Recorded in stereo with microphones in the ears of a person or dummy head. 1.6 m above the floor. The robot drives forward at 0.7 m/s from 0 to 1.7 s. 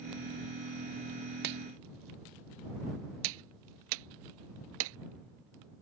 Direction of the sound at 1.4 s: 60° right (ahead or behind).